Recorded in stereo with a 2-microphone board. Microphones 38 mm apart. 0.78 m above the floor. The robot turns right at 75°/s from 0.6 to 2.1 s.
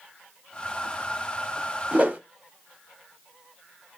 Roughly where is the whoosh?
Right.